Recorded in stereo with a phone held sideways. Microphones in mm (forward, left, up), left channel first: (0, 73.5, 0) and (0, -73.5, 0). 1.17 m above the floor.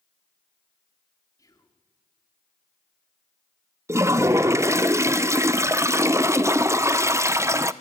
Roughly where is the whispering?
Left.